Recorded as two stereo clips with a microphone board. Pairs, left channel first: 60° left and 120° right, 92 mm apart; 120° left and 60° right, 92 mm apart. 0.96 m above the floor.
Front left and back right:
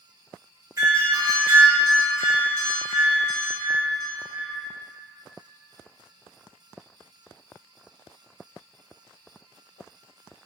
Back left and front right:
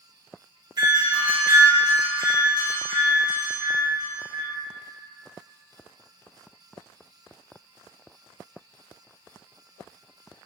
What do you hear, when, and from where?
0.8 s a doorbell: 80° right, 0.9 m